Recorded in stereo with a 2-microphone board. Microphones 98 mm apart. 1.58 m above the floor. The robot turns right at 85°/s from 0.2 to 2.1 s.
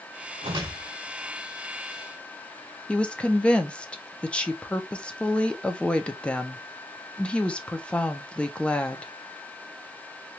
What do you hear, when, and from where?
0.4 s a whoosh: 70° right, 1.2 m; by 0.9 s 25° right, 1.2 m
2.9 s a woman speaking: 10° left (ahead or behind), 0.6 m